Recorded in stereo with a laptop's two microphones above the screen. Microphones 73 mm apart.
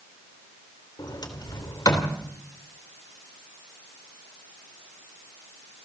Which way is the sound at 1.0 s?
65° left (ahead or behind).